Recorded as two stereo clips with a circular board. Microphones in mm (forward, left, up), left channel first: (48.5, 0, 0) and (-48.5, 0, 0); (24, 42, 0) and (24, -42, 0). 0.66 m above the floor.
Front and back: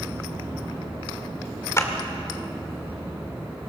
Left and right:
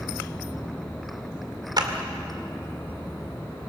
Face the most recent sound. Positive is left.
turn(degrees=-55)